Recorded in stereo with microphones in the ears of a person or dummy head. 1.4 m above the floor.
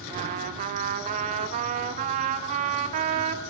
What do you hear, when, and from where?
0.1 s a trumpet: 45° right (ahead or behind), 2 m